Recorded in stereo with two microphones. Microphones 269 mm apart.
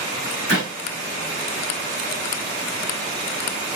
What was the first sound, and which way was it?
A clap, 65° left (ahead or behind).